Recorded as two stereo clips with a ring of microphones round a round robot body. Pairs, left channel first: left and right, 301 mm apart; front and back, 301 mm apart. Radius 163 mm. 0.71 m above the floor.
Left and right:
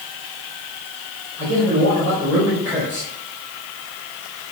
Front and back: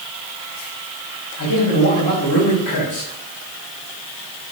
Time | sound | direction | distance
1.4 | a man speaking | 5° right | 4 m